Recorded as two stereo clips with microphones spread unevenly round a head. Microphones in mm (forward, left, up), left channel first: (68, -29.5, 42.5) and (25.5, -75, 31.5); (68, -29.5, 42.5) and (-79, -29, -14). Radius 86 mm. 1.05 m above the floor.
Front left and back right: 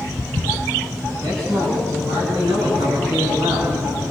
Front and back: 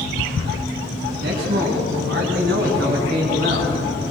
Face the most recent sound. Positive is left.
turn(degrees=-145)